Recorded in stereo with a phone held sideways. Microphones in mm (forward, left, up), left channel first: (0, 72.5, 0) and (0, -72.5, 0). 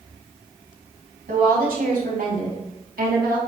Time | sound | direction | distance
1.3 | a woman speaking | 85° right | 3.5 m